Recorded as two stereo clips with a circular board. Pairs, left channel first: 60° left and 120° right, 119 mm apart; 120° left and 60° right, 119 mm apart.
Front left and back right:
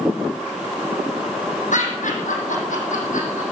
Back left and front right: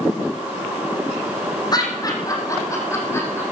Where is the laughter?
65° left, 4.5 m; by 3.4 s 50° left, 6 m.